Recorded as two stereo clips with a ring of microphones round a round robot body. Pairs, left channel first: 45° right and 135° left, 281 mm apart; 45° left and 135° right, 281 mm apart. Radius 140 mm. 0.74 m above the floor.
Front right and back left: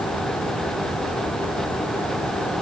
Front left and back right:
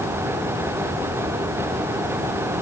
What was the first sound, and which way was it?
Only background noise.